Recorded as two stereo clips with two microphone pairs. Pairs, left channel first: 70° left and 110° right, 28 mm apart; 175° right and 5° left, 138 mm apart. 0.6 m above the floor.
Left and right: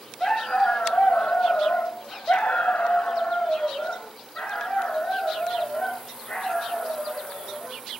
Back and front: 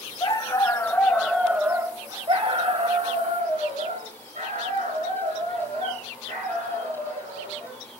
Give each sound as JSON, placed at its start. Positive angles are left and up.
{"t": 0.2, "sound": "a dog barking", "azimuth_deg": 130, "distance_m": 1.9}